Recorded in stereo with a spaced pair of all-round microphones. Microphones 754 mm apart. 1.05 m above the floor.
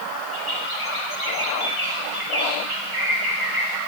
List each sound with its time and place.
0.3 s a bird: 40° left (ahead or behind), 3.5 m